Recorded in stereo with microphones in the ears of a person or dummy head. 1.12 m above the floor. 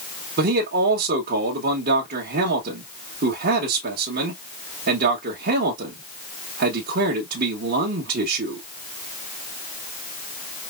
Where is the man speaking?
60° right (ahead or behind), 1.2 m.